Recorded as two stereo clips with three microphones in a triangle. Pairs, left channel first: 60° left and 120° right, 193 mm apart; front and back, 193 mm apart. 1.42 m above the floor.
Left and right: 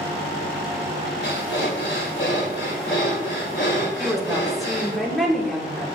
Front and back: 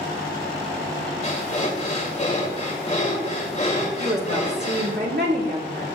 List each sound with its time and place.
1.2 s breathing: 55° left, 2 m
4.0 s a woman speaking: 150° left, 1.9 m